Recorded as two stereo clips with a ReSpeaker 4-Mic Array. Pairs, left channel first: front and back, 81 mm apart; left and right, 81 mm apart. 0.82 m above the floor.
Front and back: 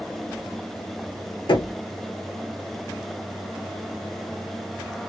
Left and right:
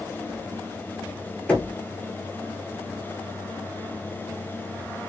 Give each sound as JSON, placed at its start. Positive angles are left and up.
{"t": 1.5, "sound": "knocking", "azimuth_deg": 20, "distance_m": 1.0}